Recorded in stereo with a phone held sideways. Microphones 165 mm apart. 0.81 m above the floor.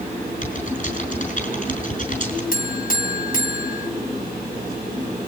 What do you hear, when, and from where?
0.4 s typing on a keyboard: 55° left (ahead or behind), 5.5 m
2.5 s a buzzer: 60° left (ahead or behind), 2.0 m